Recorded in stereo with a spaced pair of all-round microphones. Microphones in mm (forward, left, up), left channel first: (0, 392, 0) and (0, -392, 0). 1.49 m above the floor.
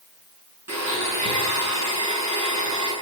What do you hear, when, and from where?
0.7 s a blender: 20° right (ahead or behind), 9 m